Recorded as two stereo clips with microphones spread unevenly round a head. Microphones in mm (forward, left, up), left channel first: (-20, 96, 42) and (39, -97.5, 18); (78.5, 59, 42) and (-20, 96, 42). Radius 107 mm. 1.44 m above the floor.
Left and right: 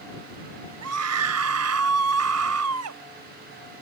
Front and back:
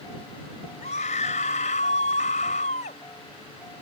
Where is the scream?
65° right.